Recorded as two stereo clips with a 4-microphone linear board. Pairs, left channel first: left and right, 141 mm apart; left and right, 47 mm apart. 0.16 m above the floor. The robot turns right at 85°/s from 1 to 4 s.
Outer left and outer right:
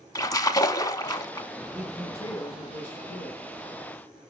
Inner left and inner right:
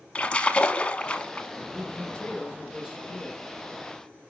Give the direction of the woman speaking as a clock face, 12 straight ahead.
12 o'clock.